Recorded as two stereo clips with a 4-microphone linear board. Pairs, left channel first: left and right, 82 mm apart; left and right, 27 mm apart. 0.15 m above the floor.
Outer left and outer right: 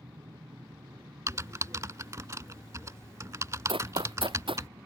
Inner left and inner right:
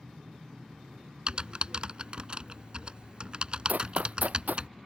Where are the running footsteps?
85° right.